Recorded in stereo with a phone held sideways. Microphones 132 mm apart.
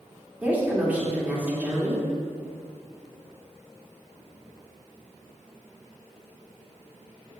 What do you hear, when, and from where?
0.4 s a woman speaking: 10° right (ahead or behind), 2.5 m